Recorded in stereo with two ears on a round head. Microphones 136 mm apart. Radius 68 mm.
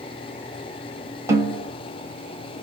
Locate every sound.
1.3 s a snare drum: 20° right (ahead or behind), 0.9 m